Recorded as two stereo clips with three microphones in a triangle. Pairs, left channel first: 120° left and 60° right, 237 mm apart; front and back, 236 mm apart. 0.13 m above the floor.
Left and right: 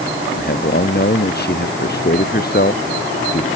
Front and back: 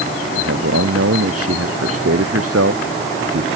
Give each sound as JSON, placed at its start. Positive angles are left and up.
{"t": 0.3, "sound": "a man speaking", "azimuth_deg": 165}